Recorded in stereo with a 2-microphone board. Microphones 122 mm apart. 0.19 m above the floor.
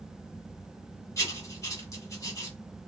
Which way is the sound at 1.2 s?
25° left (ahead or behind).